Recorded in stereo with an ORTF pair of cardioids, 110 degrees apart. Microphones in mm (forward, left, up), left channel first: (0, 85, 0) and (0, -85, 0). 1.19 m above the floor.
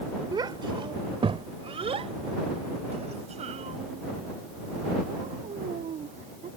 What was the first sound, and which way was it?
A child speaking, 25° right.